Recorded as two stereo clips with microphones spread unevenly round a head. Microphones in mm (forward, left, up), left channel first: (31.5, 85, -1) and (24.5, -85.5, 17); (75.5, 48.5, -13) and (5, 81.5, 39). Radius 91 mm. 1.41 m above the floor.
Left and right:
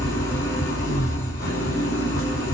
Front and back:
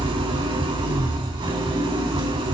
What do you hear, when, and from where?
0.0 s an engine running: 165° left, 4.5 m